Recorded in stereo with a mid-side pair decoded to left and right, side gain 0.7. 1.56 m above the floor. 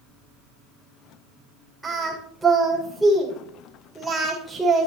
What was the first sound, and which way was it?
Singing, straight ahead.